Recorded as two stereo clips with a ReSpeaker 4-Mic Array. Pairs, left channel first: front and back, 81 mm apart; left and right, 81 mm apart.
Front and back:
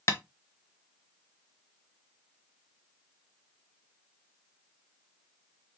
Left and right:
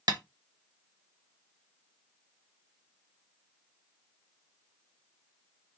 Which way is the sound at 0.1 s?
55° right.